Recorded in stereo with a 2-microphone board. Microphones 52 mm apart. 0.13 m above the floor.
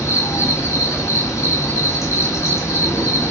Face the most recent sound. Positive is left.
turn(degrees=80)